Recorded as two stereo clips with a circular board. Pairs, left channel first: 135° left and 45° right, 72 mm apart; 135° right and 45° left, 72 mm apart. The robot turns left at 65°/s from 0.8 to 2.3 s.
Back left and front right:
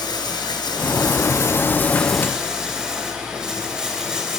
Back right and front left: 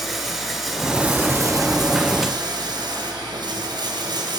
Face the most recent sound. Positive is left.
turn(degrees=40)